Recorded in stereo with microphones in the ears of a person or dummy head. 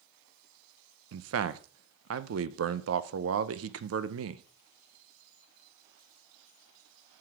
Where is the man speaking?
75° right (ahead or behind), 0.5 m.